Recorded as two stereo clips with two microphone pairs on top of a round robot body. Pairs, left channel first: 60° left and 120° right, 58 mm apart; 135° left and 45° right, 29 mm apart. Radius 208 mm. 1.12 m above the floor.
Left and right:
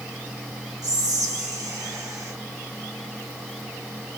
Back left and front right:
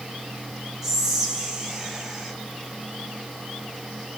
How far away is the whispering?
About 1.3 m.